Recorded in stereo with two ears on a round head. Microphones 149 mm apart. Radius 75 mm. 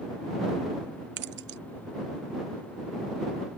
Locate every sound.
1.2 s keys jangling: 65° right (ahead or behind)